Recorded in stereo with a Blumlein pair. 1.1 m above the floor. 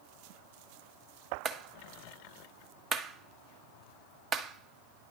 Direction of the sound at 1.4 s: 25° right.